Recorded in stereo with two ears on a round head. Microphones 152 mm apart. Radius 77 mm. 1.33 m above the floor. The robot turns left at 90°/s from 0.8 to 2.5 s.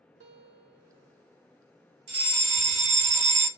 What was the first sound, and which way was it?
A guitar, 90° right.